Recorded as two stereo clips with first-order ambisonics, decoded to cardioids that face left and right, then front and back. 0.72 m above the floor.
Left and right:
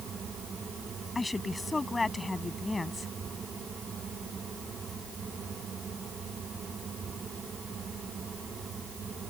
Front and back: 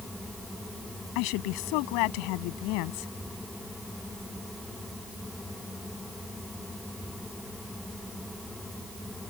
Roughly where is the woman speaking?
Ahead.